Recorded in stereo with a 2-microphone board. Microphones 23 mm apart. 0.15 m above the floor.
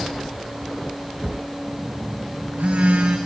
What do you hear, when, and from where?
1.7 s a phone buzzing: 80° right, 4.5 m